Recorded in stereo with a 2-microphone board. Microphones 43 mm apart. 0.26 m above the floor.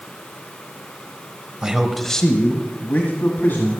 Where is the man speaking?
20° right (ahead or behind), 0.9 m; by 3.8 s 60° left (ahead or behind), 2 m.